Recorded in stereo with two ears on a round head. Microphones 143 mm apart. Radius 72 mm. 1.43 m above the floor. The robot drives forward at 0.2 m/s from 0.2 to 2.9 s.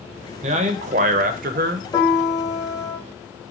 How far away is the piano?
About 0.7 m.